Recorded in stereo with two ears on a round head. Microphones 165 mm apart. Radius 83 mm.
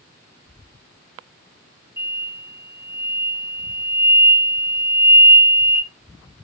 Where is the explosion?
15° right (ahead or behind), 3 m.